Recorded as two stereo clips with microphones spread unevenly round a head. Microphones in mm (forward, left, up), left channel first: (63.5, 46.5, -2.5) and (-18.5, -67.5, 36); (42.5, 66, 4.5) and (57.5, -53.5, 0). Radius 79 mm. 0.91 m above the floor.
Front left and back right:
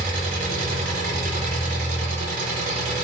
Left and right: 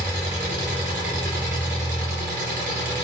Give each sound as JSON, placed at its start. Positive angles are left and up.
{"t": 0.0, "sound": "an engine running", "azimuth_deg": -110, "distance_m": 3.0}